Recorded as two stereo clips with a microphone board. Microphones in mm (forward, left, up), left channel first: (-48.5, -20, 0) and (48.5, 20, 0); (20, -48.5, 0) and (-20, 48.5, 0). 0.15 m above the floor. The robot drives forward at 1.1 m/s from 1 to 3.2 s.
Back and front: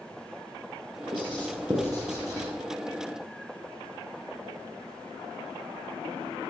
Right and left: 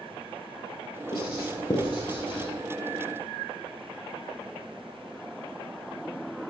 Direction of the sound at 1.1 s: 20° right.